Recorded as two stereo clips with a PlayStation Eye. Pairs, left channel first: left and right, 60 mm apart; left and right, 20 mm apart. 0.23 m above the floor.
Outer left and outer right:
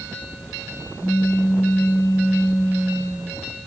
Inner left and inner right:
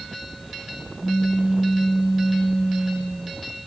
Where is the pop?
35° right (ahead or behind), 5 m.